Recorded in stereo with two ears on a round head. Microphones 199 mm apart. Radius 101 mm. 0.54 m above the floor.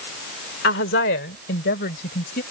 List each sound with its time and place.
0.6 s a woman speaking: 55° left (ahead or behind); by 2.4 s 45° left (ahead or behind)